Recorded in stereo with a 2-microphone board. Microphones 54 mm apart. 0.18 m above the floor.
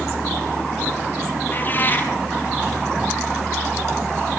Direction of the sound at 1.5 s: 35° left (ahead or behind).